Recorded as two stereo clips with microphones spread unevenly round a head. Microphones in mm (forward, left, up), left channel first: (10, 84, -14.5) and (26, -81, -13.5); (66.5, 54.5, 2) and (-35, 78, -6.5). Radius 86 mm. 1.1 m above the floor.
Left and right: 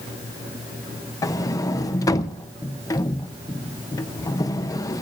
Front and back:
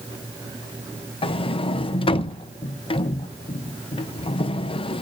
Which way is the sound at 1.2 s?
25° left.